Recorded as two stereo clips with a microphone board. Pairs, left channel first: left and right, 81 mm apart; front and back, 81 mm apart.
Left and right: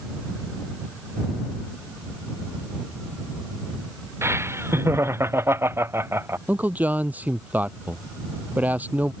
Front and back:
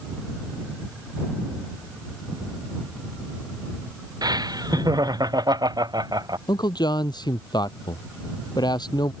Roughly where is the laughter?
Behind right.